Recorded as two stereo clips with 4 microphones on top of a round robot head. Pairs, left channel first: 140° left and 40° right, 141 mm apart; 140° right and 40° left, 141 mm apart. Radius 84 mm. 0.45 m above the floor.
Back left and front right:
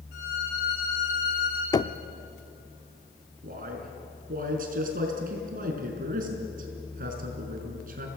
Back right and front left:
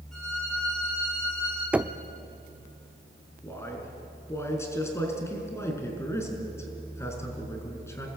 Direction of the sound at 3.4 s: 70° right.